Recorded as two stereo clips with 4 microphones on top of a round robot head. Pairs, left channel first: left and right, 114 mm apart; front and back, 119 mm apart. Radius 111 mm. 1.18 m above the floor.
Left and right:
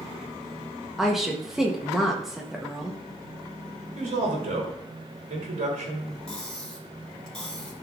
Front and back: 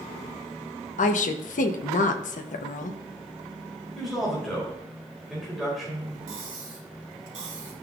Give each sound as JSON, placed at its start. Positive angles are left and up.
{"t": 1.0, "sound": "a woman speaking", "azimuth_deg": 0, "distance_m": 0.8}
{"t": 4.0, "sound": "a man speaking", "azimuth_deg": -90, "distance_m": 3.0}
{"t": 6.3, "sound": "cutlery clinking", "azimuth_deg": 175, "distance_m": 3.0}